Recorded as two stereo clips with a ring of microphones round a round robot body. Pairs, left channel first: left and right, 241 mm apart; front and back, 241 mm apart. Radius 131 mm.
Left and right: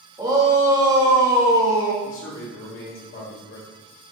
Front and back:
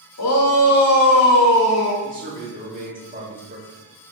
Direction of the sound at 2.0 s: 125° left.